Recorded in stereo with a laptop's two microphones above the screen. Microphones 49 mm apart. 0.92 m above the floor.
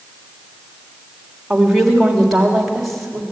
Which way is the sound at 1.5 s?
Centre (ahead or behind).